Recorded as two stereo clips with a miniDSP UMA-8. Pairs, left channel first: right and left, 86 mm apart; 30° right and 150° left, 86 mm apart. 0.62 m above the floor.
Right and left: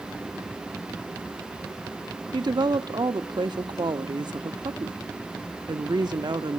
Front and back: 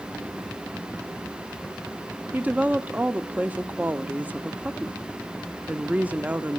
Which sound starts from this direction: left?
A woman speaking, at 2.3 s.